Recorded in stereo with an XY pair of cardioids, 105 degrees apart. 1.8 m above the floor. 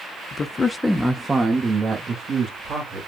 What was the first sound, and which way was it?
A man speaking, 45° left.